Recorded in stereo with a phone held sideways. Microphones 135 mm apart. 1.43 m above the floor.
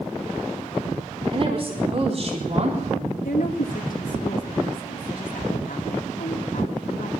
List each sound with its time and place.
1.3 s a woman speaking: 45° right (ahead or behind), 4 m; by 3.1 s 55° right (ahead or behind), 3 m
3.2 s a woman speaking: 80° left, 2 m